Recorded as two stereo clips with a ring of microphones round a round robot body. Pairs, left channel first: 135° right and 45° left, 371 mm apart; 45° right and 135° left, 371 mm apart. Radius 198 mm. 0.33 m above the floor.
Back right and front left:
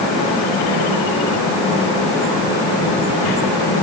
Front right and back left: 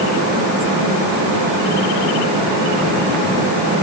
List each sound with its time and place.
Only background noise.